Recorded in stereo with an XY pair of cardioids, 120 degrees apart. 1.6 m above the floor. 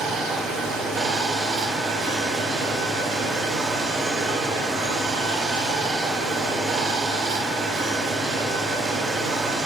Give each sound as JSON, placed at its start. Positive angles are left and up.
{"t": 0.0, "sound": "running water", "azimuth_deg": -70, "distance_m": 0.7}